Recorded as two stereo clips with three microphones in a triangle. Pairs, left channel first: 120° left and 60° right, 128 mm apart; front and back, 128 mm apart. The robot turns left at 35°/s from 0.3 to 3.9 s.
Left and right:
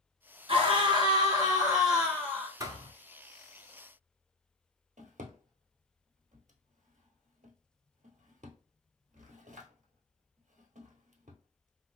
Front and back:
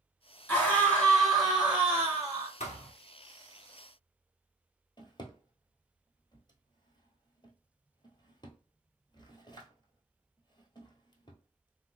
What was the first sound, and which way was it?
A scream, 65° right.